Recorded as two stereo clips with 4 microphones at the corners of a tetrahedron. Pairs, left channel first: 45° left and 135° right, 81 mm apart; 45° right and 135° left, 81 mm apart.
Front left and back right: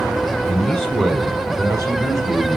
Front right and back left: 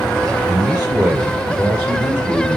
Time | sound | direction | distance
0.5 | a man speaking | 90° left | 1.1 m